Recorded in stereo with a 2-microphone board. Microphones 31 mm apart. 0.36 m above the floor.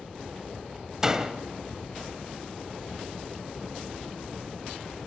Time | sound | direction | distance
1.0 | a door slam | 20° right (ahead or behind) | 1.1 m